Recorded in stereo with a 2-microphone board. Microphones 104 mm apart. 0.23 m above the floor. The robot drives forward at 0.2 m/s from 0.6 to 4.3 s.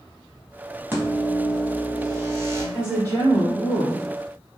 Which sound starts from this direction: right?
A woman speaking, at 2.7 s.